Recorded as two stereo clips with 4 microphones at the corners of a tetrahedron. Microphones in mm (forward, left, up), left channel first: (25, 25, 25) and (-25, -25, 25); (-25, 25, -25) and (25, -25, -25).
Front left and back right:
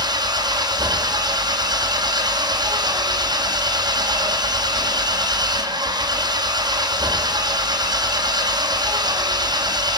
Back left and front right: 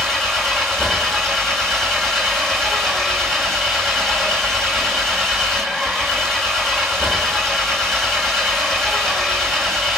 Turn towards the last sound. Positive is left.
turn(degrees=-140)